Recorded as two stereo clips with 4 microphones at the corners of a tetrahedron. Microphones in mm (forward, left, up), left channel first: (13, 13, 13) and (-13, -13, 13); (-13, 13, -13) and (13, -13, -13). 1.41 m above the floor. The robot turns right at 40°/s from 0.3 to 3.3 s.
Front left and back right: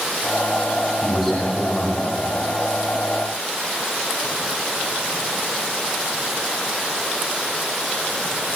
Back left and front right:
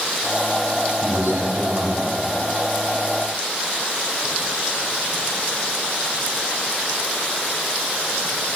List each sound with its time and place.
1.0 s a man speaking: 55° right, 8.5 m; by 2.3 s 5° right, 8.5 m